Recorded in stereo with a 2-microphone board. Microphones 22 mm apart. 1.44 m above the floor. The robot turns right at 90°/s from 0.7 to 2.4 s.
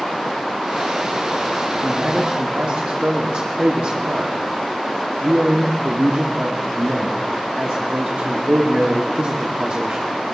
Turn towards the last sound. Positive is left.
turn(degrees=-105)